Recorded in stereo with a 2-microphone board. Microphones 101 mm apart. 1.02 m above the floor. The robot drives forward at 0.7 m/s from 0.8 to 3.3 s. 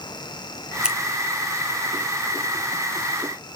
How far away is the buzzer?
No buzzer in this recording.